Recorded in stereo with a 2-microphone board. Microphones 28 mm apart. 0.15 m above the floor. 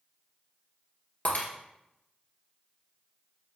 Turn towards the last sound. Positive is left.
turn(degrees=55)  # may be behind; listen again after turning